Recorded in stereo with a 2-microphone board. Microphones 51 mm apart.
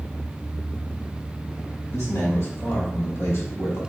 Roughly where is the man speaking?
Left.